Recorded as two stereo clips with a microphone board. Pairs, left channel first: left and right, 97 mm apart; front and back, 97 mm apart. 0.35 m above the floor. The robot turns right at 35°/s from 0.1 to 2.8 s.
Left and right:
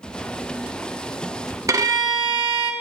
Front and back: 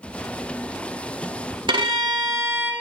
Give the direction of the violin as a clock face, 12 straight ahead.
5 o'clock.